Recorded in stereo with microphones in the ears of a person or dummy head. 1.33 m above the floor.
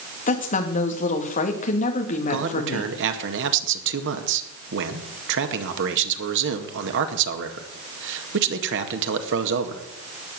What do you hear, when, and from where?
0.3 s a woman speaking: 45° left (ahead or behind), 2.5 m
2.3 s a man speaking: 65° right (ahead or behind), 2.0 m